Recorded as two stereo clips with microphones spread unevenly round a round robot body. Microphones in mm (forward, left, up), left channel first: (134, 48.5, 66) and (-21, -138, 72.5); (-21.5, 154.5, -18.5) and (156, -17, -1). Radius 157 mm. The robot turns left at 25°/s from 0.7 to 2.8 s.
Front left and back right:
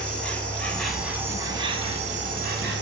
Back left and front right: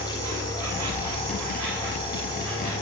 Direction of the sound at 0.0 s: 35° right.